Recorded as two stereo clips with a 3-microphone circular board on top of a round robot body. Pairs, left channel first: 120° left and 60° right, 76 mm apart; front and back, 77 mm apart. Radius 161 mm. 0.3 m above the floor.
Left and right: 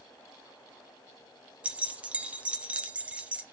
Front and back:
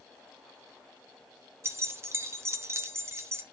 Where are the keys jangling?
130° right, 1.1 m.